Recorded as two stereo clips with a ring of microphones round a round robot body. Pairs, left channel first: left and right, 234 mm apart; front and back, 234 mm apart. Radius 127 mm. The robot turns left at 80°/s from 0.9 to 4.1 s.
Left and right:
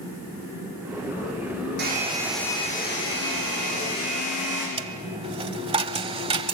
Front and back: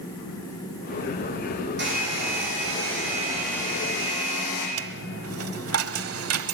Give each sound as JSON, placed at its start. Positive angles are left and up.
{"t": 1.8, "sound": "a hair dryer", "azimuth_deg": -135, "distance_m": 8.0}
{"t": 4.8, "sound": "a dropped coin", "azimuth_deg": -155, "distance_m": 1.1}